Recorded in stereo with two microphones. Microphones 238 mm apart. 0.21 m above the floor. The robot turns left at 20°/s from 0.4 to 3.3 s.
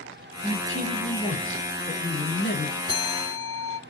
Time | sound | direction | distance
0.4 | a man speaking | 155° left | 4.5 m
2.9 | a bell | 25° right (ahead or behind) | 1.2 m